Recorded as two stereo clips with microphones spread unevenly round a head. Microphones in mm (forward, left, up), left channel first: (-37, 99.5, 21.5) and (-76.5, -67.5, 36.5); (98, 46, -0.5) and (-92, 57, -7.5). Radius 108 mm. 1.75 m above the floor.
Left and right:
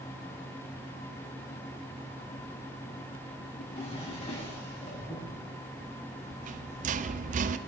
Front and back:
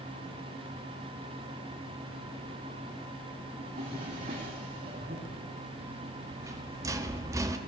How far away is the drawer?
About 6.5 m.